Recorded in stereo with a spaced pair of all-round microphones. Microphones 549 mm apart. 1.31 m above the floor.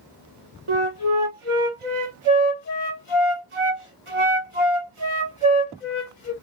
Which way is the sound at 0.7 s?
65° right (ahead or behind).